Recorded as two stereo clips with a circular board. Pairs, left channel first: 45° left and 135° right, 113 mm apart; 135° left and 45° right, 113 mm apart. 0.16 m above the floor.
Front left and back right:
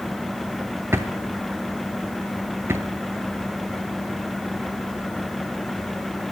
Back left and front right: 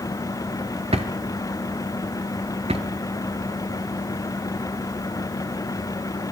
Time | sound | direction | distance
0.9 | a drawer | 70° right | 0.8 m